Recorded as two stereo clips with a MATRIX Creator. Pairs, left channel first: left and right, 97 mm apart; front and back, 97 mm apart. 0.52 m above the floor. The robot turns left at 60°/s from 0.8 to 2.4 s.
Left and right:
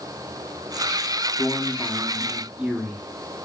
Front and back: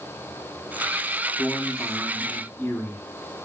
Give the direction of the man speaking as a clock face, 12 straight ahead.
11 o'clock.